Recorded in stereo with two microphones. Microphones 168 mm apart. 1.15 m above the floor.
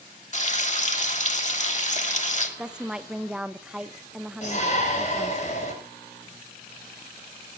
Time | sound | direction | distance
0.3 | frying | 45° left (ahead or behind) | 2.5 m
2.6 | a woman speaking | 5° right (ahead or behind) | 0.7 m
4.4 | a shout | 45° left (ahead or behind) | 5.5 m